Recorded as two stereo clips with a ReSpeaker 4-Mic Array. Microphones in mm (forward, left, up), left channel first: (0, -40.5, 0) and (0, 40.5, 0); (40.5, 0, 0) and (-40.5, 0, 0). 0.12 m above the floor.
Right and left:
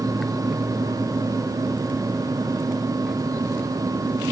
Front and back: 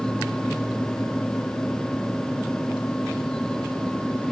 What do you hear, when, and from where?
Only background noise.